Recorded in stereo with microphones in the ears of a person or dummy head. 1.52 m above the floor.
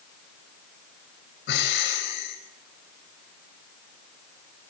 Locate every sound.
1.5 s breathing: 70° left (ahead or behind), 4.5 m